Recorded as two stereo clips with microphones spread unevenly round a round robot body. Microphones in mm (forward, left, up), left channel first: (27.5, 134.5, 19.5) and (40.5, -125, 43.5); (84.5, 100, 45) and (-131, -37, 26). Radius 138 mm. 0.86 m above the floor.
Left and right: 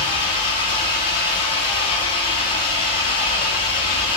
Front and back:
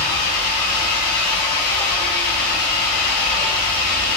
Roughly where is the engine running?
Ahead.